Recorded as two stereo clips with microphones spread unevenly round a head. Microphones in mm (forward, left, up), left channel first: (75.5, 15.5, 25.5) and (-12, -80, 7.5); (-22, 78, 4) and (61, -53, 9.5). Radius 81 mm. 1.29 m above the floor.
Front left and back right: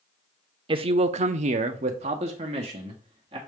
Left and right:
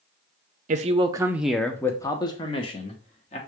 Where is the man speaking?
95° right, 0.5 m; by 3.4 s 175° left, 1.4 m.